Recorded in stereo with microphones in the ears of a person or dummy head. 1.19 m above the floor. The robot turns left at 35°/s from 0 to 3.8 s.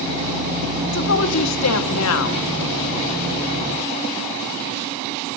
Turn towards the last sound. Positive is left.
turn(degrees=15)